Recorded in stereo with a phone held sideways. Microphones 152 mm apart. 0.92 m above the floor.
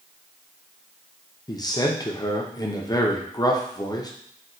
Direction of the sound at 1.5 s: 25° left (ahead or behind).